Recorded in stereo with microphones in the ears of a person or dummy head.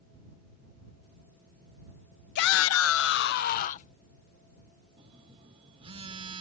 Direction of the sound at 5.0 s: 35° right (ahead or behind).